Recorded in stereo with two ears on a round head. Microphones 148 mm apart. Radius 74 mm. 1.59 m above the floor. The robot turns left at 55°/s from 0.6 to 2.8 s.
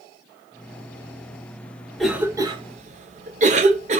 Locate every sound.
2.0 s a cough: centre (ahead or behind), 0.7 m; by 4.0 s 45° right (ahead or behind), 0.7 m